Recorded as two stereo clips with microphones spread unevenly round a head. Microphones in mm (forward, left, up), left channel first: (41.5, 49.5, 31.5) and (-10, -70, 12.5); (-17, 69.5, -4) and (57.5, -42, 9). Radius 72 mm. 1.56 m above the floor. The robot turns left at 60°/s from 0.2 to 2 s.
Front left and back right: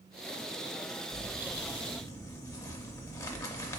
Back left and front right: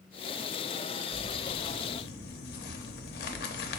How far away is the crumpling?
About 0.5 m.